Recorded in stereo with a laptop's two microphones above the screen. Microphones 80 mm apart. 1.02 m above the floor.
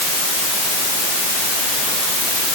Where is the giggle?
No giggle in this recording.